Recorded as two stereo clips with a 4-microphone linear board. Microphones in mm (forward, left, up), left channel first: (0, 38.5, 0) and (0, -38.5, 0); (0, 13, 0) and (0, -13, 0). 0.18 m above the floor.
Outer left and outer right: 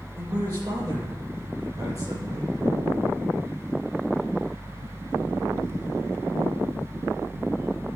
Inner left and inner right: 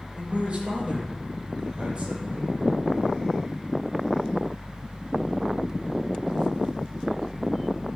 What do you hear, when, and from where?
0.1 s a man speaking: 50° right (ahead or behind), 6 m